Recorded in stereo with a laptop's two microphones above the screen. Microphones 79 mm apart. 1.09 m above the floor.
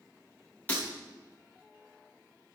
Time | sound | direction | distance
0.7 | breaking glass | 25° left (ahead or behind) | 5 m